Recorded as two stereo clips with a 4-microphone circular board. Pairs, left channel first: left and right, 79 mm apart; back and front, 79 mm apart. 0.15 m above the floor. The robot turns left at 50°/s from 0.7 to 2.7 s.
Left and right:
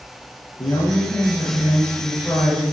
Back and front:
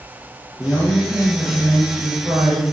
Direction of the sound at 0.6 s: 90° left.